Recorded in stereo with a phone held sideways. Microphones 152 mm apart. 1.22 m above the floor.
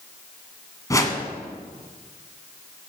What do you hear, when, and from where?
0.9 s a whoosh: 20° left (ahead or behind), 1.5 m